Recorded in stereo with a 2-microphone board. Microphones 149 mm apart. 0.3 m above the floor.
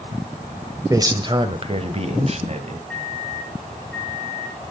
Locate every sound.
0.9 s a man speaking: 20° right (ahead or behind), 1.2 m; by 2.8 s 50° right (ahead or behind), 2 m
2.9 s a microwave: 5° left (ahead or behind), 3 m